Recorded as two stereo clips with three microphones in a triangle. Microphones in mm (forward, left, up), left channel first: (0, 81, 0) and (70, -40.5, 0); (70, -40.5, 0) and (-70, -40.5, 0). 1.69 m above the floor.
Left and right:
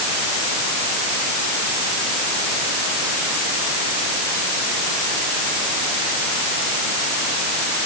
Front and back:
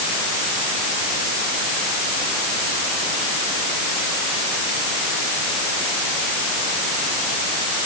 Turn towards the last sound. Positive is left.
No sound to turn to.